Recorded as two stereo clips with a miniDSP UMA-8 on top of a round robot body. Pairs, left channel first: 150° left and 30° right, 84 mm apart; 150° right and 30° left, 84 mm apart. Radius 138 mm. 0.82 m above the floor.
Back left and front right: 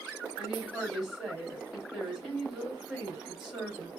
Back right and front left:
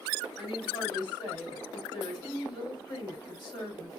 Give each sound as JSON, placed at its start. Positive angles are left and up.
{"t": 0.4, "sound": "a woman speaking", "azimuth_deg": -115, "distance_m": 3.5}